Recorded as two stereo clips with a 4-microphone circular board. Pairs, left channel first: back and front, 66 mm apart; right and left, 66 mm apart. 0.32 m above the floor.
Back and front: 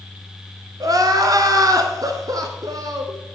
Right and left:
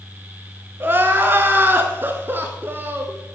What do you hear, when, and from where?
0.8 s crying: 30° left, 0.8 m